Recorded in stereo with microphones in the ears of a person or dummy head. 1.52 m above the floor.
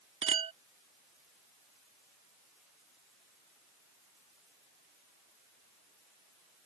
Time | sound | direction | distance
0.2 | a clink | 35° right (ahead or behind) | ?